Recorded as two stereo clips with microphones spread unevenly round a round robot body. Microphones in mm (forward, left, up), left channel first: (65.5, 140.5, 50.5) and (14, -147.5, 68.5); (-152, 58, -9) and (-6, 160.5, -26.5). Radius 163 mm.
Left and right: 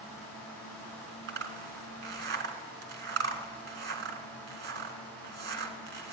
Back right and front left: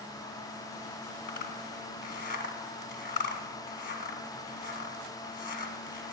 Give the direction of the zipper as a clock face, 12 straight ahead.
5 o'clock.